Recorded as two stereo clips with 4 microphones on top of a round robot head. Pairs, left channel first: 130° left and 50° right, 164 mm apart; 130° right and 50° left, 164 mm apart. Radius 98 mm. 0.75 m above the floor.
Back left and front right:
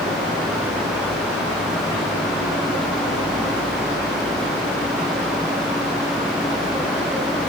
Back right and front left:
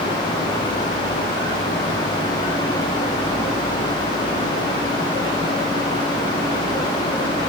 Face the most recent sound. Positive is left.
No sound to turn to.